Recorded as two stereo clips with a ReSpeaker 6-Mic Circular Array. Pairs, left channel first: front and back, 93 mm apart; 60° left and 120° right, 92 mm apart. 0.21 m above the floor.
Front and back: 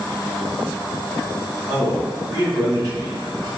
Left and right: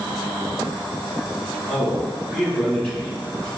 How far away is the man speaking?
About 1.5 m.